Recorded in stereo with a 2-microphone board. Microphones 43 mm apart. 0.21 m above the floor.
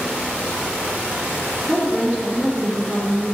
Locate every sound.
1.7 s a woman speaking: 45° right (ahead or behind), 2.5 m